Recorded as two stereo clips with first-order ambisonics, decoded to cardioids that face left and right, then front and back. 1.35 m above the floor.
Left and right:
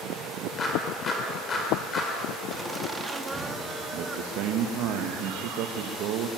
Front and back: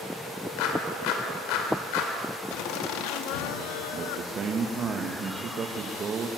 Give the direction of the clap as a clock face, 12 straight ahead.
11 o'clock.